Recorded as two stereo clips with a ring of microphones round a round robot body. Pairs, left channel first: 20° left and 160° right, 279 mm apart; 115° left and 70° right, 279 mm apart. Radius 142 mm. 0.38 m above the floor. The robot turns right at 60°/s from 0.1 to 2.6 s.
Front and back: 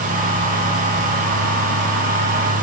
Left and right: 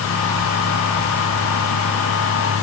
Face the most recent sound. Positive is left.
No sound to turn to.